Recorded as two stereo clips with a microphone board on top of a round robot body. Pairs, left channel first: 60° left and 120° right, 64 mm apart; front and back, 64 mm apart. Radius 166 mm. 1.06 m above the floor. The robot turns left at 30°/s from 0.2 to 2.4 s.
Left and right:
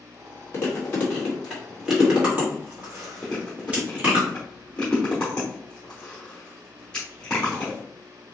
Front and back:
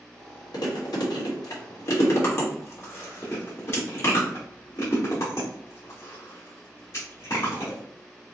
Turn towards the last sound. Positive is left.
turn(degrees=-20)